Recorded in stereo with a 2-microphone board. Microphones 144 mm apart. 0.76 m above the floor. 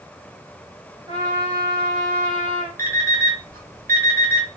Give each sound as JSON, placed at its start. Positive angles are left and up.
{"t": 1.1, "sound": "a trumpet", "side_deg": -30, "distance_m": 1.8}
{"t": 2.8, "sound": "an alarm clock", "side_deg": -85, "distance_m": 1.1}